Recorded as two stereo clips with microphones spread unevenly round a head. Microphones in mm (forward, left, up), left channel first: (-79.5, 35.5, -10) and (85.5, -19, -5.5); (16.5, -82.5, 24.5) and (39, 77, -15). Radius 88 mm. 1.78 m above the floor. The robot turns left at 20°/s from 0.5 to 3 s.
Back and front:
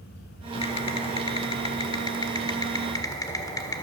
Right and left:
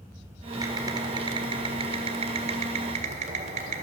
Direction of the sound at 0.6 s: 160° left.